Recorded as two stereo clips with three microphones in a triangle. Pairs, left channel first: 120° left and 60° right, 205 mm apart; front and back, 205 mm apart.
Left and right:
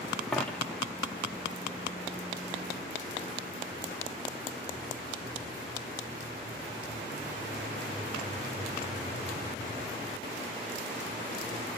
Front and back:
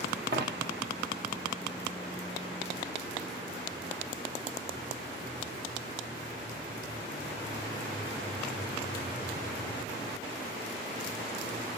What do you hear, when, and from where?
0.3 s a dropped coin: 155° right, 0.8 m